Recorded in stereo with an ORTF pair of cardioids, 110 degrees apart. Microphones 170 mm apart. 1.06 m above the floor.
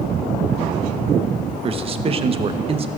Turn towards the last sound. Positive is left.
turn(degrees=-35)